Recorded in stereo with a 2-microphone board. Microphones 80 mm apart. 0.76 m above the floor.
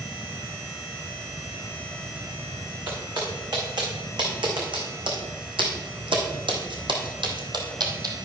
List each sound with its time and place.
2.9 s footsteps: 60° right (ahead or behind), 4 m; by 8.1 s 50° right (ahead or behind), 2.0 m